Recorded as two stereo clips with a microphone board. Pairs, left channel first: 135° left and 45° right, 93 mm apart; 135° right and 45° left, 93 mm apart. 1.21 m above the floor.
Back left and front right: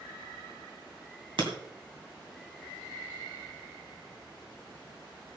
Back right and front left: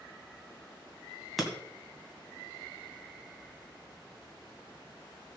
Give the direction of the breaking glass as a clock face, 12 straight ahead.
1 o'clock.